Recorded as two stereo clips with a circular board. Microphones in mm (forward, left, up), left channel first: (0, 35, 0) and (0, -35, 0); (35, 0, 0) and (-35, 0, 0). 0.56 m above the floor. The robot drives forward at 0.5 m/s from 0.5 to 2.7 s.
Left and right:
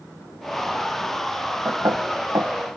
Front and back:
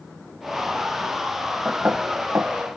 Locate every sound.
1.6 s knocking: 120° right; by 2.6 s 130° right